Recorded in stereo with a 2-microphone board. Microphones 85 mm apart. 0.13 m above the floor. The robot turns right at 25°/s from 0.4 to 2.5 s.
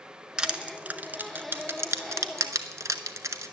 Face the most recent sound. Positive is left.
turn(degrees=-40)  # may be behind; listen again after turning